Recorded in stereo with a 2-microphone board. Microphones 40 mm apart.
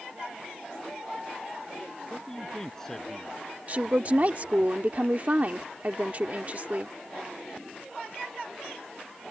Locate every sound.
2.1 s a man speaking: 15° left (ahead or behind); by 4.7 s 10° left (ahead or behind)
3.7 s a woman speaking: 45° right (ahead or behind)